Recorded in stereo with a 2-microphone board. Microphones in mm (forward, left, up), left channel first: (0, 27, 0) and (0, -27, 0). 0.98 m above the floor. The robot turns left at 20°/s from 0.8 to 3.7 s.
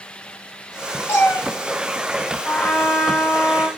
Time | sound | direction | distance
1.1 | a cat meowing | 50° left (ahead or behind) | 1.2 m
2.5 | a trumpet | 15° left (ahead or behind) | 0.9 m